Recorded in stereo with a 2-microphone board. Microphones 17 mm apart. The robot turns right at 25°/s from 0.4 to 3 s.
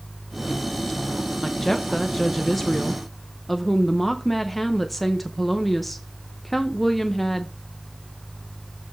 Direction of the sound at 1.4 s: 15° left (ahead or behind).